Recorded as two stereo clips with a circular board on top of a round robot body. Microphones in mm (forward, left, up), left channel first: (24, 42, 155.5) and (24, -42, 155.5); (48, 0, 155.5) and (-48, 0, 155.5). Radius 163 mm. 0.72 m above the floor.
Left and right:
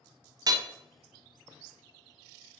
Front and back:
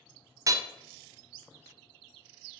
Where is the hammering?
125° right, 0.7 m.